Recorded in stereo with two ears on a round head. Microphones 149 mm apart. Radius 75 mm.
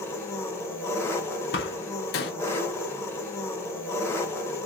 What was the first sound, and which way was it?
An engine running, 15° left (ahead or behind).